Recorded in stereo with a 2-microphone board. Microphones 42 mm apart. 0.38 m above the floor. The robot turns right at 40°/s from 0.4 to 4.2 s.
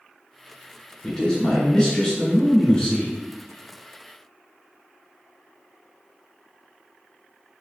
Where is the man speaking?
15° left (ahead or behind), 1.2 m; by 3.1 s 20° left (ahead or behind), 1.2 m.